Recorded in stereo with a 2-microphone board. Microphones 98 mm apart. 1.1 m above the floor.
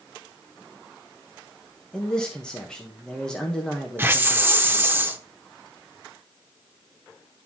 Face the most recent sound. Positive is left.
turn(degrees=-20)  # may be behind; listen again after turning